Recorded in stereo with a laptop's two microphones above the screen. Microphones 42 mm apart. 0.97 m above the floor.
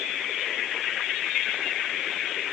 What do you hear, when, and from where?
Only background noise.